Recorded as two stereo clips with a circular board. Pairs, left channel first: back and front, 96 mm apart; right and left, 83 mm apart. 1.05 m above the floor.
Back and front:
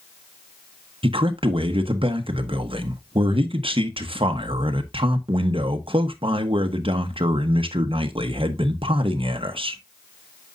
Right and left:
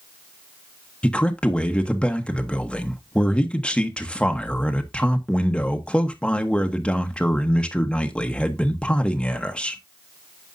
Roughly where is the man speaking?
Ahead.